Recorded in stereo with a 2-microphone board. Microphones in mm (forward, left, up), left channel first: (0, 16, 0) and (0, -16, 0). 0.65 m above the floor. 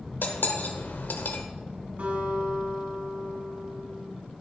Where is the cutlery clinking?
75° left (ahead or behind), 1.3 m.